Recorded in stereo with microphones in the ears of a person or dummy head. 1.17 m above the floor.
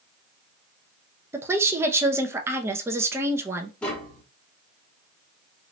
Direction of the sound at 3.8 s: 5° left (ahead or behind).